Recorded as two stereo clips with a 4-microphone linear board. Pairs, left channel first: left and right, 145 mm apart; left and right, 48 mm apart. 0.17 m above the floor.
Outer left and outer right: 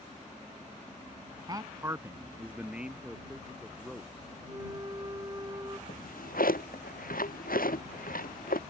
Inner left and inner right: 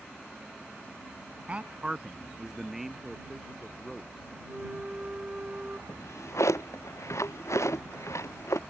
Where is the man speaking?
30° right (ahead or behind); by 4.4 s centre (ahead or behind).